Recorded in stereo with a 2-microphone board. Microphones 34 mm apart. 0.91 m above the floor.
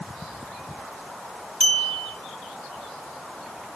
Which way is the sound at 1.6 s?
20° left (ahead or behind).